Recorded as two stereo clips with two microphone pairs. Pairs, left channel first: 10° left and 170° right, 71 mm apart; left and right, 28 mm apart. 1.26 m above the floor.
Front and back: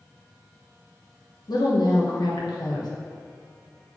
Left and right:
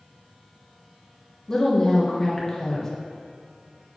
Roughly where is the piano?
I don't hear a piano.